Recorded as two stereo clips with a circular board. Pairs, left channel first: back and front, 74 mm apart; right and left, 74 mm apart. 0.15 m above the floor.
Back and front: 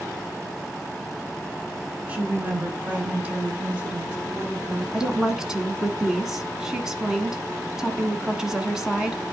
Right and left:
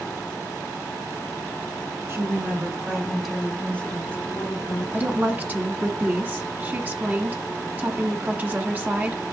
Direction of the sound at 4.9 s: 75° left.